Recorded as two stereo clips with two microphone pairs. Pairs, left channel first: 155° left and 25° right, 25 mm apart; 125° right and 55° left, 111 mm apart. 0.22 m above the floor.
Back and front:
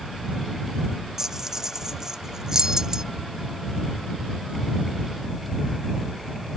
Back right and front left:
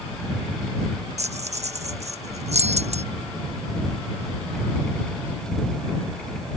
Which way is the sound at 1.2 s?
45° left.